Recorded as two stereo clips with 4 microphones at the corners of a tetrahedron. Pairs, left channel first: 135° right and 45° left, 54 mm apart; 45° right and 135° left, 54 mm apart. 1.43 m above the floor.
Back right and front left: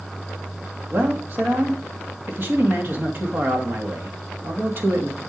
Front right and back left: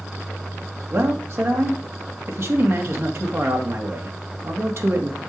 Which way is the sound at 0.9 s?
95° left.